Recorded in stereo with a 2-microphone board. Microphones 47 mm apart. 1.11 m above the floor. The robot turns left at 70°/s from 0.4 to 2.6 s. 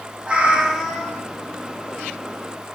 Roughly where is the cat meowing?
Behind right.